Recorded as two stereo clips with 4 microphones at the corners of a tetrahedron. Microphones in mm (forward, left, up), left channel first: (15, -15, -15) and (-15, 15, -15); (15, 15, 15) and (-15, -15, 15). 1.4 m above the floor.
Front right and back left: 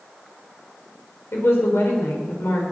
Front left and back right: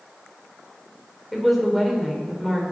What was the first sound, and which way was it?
A woman speaking, 45° right.